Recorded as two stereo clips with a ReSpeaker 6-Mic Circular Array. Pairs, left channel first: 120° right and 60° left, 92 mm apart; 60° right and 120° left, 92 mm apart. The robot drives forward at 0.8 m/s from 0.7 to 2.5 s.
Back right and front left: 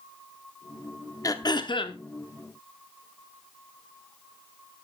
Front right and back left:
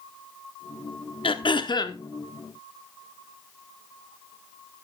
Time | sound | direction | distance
1.2 | throat clearing | 70° right | 1.1 m